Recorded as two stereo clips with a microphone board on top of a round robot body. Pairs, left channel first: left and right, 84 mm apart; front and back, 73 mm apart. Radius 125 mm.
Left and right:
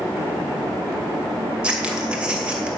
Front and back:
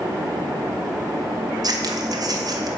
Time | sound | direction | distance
1.6 | scissors | 165° right | 2.5 m